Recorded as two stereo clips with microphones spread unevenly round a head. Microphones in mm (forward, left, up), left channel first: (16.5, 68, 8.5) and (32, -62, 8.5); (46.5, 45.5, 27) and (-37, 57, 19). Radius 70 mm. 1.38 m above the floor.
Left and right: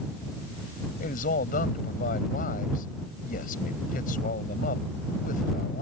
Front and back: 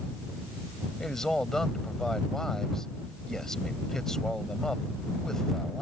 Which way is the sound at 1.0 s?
75° left.